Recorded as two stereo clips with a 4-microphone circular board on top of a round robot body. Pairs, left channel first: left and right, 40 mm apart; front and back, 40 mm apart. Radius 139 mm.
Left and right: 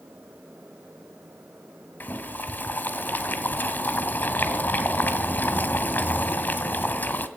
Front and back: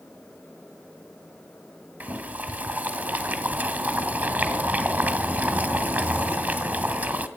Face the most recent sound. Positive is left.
turn(degrees=135)